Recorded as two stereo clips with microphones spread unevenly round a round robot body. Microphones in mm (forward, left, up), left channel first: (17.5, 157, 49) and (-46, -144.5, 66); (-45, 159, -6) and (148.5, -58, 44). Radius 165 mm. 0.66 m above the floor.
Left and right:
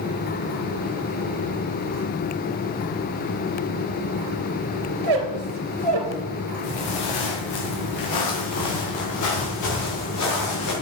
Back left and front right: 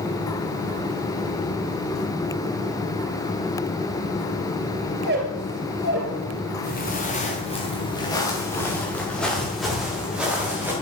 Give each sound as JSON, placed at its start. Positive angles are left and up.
{"t": 5.0, "sound": "a squeak", "azimuth_deg": -110, "distance_m": 2.5}
{"t": 6.6, "sound": "footsteps", "azimuth_deg": 70, "distance_m": 3.5}